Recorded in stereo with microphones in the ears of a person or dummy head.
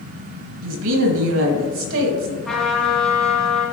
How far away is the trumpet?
About 1.5 m.